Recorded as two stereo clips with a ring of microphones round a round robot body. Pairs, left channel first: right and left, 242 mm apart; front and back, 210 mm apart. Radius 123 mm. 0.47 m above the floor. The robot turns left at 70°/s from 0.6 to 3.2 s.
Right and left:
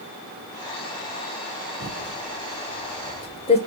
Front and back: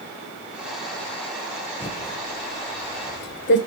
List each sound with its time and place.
1.8 s typing on a keyboard: 70° left, 1.7 m; by 3.6 s 25° right, 1.7 m